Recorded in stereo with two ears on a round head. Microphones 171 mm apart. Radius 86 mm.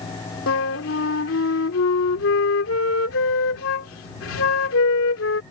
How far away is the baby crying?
I don't hear a baby crying.